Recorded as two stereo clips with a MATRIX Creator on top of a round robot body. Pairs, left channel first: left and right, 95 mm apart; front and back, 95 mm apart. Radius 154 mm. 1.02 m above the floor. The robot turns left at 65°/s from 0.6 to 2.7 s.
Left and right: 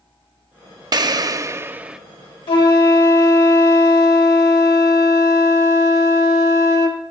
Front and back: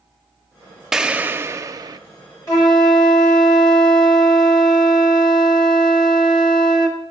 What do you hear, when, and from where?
0.9 s an explosion: 95° right, 0.7 m; by 2.0 s 165° right, 0.7 m
2.5 s a flute: 55° left, 1.3 m; by 7.0 s 40° left, 1.3 m